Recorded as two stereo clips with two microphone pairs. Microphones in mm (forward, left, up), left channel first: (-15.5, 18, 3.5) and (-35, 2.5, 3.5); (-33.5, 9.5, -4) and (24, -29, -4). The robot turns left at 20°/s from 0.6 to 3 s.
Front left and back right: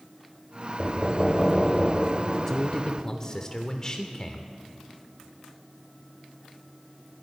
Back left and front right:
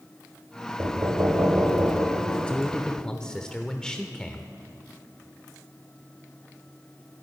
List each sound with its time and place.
0.8 s knocking: 10° right, 1.8 m; by 2.9 s 55° right, 1.8 m
2.5 s a man speaking: 90° left, 0.9 m; by 4.5 s 75° left, 0.9 m